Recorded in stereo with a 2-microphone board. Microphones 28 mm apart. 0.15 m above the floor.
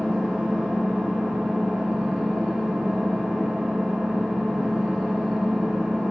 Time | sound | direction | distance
0.0 | an engine running | 20° right (ahead or behind) | 8.5 m